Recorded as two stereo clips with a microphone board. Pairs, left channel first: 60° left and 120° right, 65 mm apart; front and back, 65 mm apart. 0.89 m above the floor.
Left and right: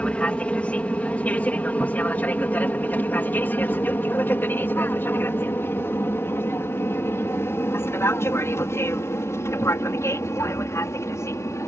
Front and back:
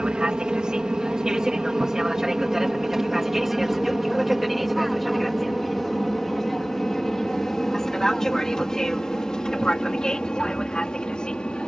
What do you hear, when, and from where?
0.0 s an aircraft: 115° left; by 11.7 s 70° left